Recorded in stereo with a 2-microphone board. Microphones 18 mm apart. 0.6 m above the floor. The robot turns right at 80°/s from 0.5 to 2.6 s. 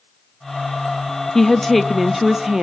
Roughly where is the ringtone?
No ringtone in this recording.